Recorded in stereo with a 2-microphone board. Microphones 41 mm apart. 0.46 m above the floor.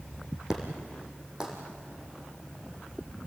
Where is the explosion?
20° right (ahead or behind), 4.5 m.